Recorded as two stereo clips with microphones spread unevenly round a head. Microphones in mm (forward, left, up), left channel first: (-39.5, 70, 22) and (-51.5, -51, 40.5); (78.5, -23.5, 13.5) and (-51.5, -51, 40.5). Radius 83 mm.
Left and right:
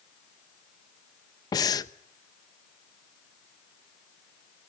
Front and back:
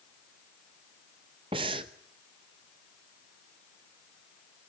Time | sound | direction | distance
1.5 | breathing | 145° left | 0.9 m